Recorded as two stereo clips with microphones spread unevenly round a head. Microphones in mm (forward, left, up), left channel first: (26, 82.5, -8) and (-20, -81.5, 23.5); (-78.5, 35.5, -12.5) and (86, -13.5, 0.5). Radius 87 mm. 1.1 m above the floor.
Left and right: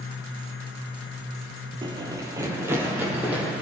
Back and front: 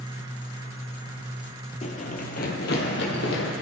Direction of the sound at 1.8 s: 150° right.